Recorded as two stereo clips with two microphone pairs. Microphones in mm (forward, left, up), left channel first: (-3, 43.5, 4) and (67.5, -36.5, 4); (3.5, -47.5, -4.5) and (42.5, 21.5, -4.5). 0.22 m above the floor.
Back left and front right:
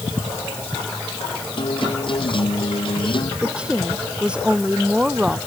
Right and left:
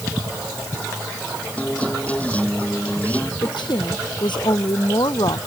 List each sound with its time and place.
1.6 s a guitar: 170° left
3.4 s a woman speaking: 130° right